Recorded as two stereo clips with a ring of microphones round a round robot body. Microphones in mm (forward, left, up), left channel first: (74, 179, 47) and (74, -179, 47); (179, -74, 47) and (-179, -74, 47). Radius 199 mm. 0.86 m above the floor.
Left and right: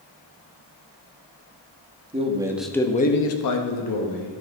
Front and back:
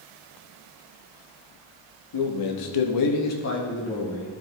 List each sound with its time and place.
2.1 s a man speaking: 20° right, 1.5 m; by 4.3 s 90° left, 1.6 m